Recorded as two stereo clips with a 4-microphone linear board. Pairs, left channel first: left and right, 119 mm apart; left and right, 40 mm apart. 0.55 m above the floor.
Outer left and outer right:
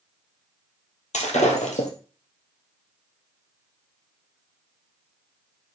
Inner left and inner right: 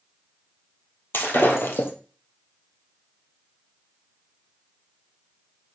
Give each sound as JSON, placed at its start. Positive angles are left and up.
{"t": 1.1, "sound": "breaking glass", "side_deg": 80, "distance_m": 2.0}